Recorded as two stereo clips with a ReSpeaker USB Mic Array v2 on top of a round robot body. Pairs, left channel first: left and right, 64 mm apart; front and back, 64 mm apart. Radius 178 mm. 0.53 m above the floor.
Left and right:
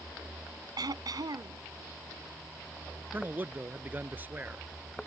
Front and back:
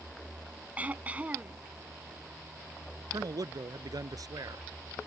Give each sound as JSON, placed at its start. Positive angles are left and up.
{"t": 0.8, "sound": "throat clearing", "azimuth_deg": -110}
{"t": 3.1, "sound": "a man speaking", "azimuth_deg": -155}